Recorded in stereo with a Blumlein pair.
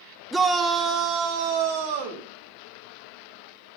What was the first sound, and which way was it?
A shout, 5° right.